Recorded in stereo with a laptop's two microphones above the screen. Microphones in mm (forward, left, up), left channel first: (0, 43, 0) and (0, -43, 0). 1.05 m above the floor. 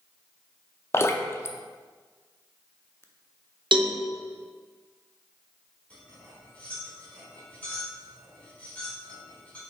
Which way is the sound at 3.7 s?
70° right (ahead or behind).